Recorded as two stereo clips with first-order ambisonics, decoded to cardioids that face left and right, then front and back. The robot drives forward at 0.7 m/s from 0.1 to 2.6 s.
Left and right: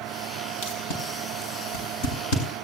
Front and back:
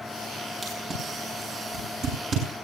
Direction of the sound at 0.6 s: 110° left.